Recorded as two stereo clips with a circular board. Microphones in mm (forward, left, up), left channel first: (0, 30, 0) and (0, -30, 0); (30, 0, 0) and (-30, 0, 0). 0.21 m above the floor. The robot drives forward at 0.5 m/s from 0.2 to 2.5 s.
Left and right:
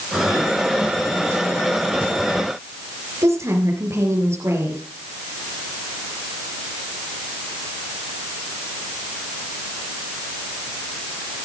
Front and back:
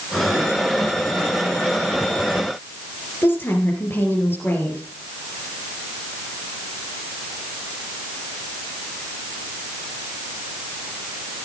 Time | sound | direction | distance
3.2 | a woman speaking | 55° right | 4.5 m